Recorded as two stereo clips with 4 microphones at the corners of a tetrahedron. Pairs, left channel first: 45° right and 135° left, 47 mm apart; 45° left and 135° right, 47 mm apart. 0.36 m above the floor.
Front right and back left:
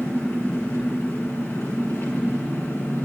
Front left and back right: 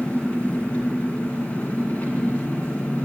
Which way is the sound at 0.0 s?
10° right.